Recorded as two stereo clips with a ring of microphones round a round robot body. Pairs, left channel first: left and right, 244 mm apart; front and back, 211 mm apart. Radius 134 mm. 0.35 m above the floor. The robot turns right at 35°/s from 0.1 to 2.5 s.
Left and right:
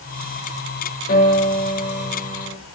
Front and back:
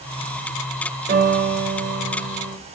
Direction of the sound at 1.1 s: 140° left.